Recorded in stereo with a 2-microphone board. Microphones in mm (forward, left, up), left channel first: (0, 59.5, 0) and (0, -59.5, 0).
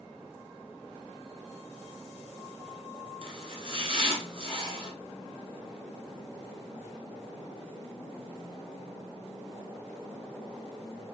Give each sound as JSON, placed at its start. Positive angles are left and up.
{"t": 3.2, "sound": "chopping", "side_deg": -55, "distance_m": 0.9}